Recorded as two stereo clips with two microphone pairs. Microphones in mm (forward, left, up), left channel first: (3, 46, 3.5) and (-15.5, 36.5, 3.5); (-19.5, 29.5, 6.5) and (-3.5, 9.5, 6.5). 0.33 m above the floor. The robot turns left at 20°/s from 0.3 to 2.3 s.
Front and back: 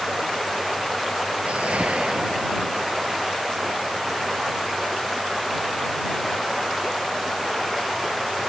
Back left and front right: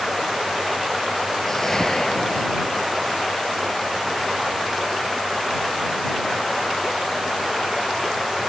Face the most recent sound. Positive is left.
turn(degrees=-175)